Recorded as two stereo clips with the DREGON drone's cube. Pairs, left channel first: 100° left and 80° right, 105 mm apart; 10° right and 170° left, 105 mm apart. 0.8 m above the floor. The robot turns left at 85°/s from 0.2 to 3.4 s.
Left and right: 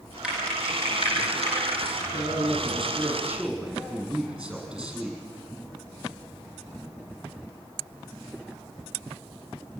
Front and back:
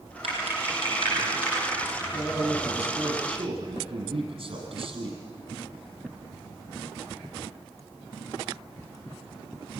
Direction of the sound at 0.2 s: 160° right.